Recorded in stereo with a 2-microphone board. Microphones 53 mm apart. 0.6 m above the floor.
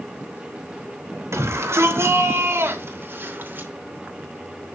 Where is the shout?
60° right (ahead or behind), 3 m; by 3.7 s 40° right (ahead or behind), 2.5 m.